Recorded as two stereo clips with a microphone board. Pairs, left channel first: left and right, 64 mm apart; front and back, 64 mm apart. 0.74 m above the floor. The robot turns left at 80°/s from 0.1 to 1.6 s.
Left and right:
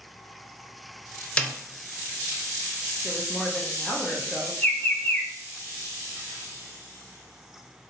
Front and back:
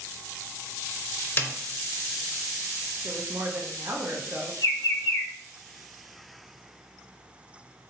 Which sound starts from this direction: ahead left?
A snare drum, at 1.4 s.